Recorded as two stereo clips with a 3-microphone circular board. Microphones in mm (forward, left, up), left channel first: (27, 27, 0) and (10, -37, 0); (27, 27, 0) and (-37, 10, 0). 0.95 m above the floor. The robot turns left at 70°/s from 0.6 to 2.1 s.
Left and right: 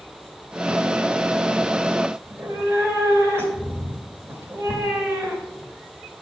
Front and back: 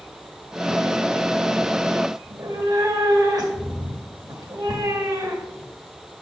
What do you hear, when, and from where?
2.2 s a cat meowing: 155° right, 1.9 m